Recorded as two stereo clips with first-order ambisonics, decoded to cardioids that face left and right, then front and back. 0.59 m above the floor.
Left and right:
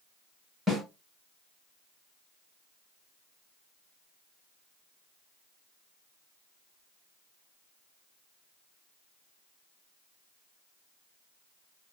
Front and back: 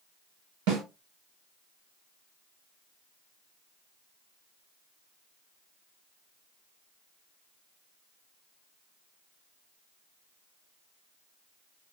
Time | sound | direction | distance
0.7 | a snare drum | 175° right | 1.8 m